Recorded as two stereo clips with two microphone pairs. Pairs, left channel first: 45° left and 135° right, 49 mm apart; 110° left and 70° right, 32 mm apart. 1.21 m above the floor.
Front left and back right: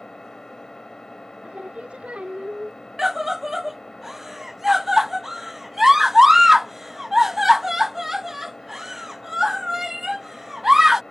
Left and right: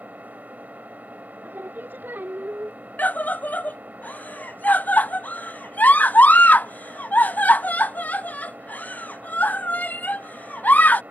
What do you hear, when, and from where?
0.0 s an engine running: 35° right
1.4 s singing: 70° right
3.0 s a scream: 145° left